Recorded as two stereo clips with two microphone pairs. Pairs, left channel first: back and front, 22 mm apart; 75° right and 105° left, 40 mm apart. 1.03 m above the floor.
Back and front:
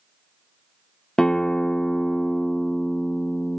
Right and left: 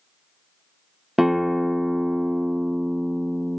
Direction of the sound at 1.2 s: 170° right.